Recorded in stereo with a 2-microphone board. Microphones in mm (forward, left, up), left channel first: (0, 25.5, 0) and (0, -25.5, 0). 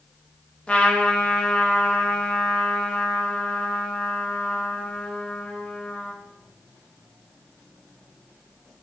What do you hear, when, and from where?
0.7 s a trumpet: 20° left (ahead or behind), 0.6 m